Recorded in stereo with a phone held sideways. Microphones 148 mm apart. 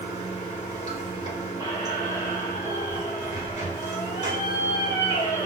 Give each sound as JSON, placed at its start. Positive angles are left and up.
{"t": 0.0, "sound": "running water", "side_deg": 40, "distance_m": 2.5}
{"t": 1.6, "sound": "a squeak", "side_deg": 20, "distance_m": 1.7}